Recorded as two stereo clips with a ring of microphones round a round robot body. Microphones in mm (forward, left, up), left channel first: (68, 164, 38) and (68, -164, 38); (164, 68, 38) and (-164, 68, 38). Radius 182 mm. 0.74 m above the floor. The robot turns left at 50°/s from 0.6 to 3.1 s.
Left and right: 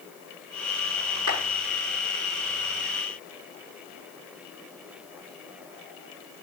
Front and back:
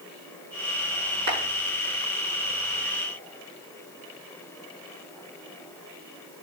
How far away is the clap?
About 7.5 m.